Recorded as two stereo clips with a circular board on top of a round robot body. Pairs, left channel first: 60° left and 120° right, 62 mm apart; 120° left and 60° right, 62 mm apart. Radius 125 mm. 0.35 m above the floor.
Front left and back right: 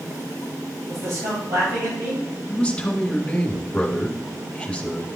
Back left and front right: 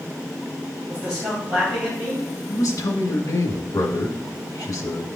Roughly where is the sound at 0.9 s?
Behind right.